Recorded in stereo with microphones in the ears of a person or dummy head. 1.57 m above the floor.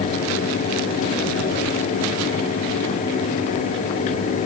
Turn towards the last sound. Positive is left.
No sound to turn to.